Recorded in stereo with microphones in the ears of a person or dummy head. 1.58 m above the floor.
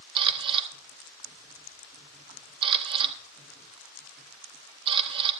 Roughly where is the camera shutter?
Right.